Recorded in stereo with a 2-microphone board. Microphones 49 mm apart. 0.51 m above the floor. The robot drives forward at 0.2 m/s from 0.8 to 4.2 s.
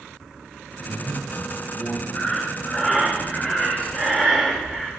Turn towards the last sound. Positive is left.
turn(degrees=20)  # may be behind; listen again after turning